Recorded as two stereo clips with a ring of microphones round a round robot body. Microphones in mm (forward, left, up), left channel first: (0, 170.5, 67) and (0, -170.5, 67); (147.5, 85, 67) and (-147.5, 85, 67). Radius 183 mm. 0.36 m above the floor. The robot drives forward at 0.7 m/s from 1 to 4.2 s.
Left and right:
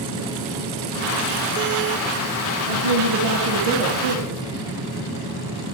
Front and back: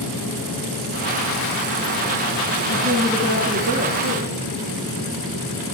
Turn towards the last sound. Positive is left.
turn(degrees=-115)